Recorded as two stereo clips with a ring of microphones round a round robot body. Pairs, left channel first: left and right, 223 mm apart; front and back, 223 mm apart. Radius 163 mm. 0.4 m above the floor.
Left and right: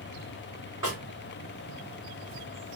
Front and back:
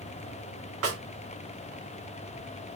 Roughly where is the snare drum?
Behind.